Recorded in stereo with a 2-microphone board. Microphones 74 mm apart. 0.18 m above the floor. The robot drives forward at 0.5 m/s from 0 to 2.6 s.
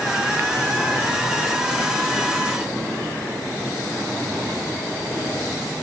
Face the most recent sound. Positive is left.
No sound to turn to.